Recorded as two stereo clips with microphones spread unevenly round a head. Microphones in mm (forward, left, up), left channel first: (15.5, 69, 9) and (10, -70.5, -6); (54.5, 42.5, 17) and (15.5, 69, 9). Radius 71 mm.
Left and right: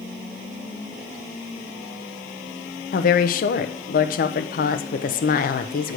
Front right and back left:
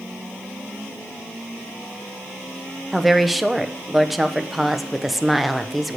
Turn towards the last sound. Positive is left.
turn(degrees=60)